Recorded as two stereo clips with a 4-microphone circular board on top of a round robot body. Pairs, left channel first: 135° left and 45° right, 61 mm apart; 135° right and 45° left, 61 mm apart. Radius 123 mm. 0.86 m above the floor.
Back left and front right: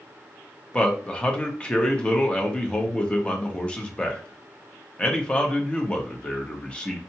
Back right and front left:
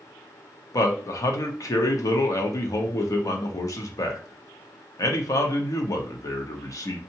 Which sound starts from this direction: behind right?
A man speaking, at 0.7 s.